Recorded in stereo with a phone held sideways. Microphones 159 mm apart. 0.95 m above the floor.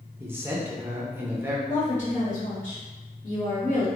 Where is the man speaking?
15° right (ahead or behind), 0.6 m.